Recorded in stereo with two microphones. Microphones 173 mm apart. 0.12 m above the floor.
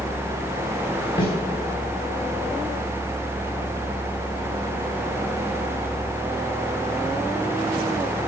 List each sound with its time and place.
1.2 s a snare drum: 25° left (ahead or behind), 4 m